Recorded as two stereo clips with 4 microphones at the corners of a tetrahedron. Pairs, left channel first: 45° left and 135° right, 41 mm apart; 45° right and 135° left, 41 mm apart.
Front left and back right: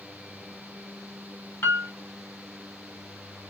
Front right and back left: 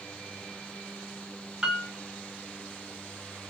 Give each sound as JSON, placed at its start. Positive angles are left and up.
{"t": 1.6, "sound": "a piano", "azimuth_deg": 60, "distance_m": 1.0}